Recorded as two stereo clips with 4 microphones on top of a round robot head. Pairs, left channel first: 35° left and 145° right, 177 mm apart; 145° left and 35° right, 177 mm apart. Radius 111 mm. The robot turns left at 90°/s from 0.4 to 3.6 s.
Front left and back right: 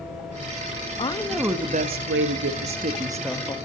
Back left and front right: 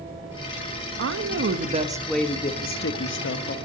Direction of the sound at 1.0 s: 25° right.